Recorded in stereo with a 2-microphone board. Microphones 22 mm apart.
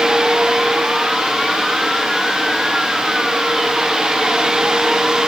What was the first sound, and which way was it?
Only background noise.